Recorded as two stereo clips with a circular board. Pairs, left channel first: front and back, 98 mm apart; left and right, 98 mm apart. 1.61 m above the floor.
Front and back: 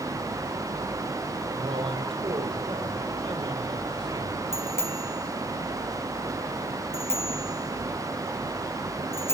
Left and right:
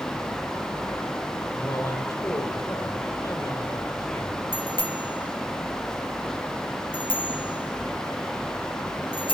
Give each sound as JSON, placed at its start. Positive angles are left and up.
{"t": 1.5, "sound": "a man speaking", "azimuth_deg": 155, "distance_m": 5.0}
{"t": 4.5, "sound": "a bicycle bell", "azimuth_deg": 60, "distance_m": 3.5}